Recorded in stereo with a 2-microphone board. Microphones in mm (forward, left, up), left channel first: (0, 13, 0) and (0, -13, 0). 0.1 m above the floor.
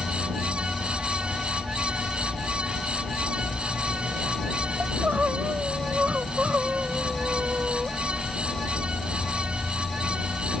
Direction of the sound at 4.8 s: 80° right.